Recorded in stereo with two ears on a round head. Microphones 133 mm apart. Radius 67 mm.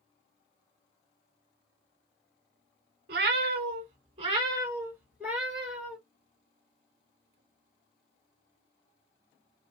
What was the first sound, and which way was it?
A cat meowing, 65° right (ahead or behind).